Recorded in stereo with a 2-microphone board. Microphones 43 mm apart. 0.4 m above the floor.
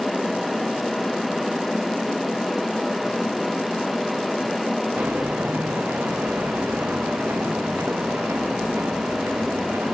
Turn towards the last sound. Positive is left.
turn(degrees=-85)